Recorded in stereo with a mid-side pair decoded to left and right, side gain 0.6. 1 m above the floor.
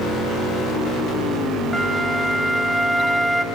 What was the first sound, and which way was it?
A flute, straight ahead.